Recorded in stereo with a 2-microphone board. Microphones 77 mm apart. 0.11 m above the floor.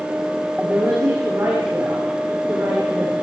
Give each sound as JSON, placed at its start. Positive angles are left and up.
{"t": 0.6, "sound": "a woman speaking", "side_deg": -30, "distance_m": 9.0}